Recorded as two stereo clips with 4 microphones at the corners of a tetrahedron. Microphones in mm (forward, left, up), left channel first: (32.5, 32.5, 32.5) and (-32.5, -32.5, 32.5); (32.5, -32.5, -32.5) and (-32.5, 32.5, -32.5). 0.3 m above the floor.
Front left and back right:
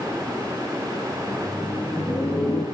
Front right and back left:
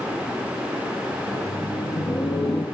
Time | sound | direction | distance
1.2 | laughter | 35° right | 6.5 m